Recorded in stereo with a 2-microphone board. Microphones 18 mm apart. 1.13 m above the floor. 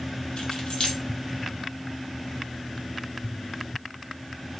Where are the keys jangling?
70° left (ahead or behind), 0.8 m.